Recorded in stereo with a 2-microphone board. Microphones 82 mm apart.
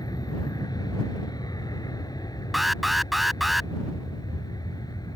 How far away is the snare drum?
No snare drum in this recording.